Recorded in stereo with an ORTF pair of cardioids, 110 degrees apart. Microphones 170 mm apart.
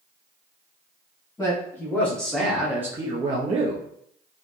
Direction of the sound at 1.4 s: 20° left.